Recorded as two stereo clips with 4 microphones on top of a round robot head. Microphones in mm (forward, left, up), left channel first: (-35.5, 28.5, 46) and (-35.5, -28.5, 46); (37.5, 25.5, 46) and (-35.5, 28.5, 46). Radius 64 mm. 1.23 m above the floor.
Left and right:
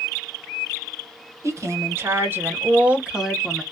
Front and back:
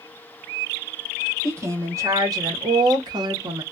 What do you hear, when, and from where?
1.4 s a woman speaking: 125° right, 1.3 m; by 3.6 s straight behind, 1.0 m